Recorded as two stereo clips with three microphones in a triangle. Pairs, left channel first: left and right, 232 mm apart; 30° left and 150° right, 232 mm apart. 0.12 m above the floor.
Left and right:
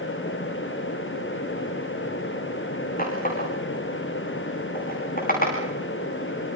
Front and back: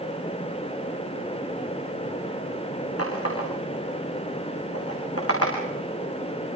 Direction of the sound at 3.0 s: 40° left.